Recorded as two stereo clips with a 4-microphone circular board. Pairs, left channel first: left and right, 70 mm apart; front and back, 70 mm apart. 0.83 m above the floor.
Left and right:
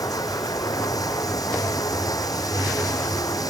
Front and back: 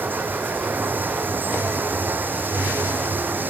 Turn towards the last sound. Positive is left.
turn(degrees=120)